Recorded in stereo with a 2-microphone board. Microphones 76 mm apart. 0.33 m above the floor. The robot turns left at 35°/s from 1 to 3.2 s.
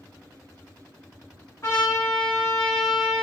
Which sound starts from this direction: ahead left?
A trumpet, at 1.6 s.